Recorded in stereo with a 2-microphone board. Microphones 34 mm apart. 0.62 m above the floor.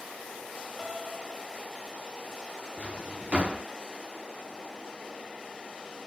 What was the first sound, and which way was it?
A piano, 25° right (ahead or behind).